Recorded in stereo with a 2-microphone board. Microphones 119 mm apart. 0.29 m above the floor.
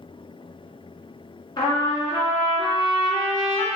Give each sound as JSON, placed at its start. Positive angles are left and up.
{"t": 1.6, "sound": "a trumpet", "side_deg": 45, "distance_m": 0.9}